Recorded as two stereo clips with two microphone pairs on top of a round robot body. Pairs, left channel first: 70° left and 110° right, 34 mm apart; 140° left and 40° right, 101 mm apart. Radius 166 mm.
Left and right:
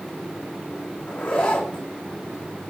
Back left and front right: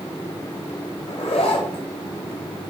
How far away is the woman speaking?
I don't hear a woman speaking.